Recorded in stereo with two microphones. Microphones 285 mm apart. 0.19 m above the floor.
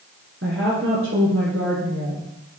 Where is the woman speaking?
45° right (ahead or behind), 2.5 m; by 2.2 s 50° right (ahead or behind), 3.5 m.